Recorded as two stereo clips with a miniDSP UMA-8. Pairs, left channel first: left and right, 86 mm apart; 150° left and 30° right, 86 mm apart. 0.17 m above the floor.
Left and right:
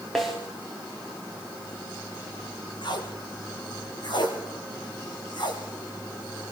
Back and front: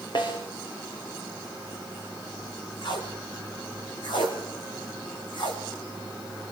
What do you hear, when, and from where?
0.1 s a snare drum: straight behind, 6 m
2.8 s tape being pulled: 125° left, 4.5 m